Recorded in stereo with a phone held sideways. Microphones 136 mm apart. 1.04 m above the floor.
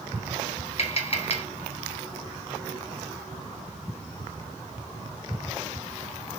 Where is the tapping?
45° left (ahead or behind), 1.2 m.